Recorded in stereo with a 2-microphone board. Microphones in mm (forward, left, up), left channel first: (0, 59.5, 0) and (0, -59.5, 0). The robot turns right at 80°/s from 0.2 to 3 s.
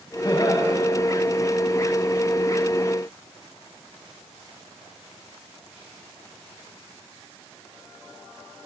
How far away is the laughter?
About 2 m.